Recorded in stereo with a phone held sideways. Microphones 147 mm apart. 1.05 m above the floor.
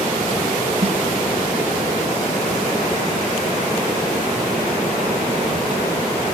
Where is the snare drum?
45° right (ahead or behind), 1.3 m.